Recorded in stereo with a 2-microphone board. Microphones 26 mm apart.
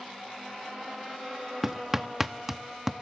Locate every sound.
1.6 s hammering: 10° right (ahead or behind), 0.7 m